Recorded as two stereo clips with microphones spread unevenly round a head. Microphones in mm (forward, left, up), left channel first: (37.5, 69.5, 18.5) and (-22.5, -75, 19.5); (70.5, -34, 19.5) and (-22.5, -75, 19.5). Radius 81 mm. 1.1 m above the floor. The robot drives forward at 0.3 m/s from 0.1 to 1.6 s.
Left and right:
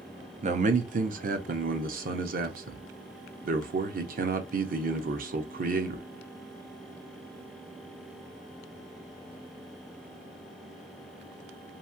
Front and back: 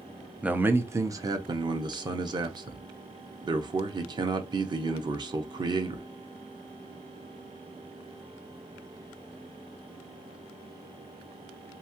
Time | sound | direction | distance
0.4 | a man speaking | 80° right | 0.6 m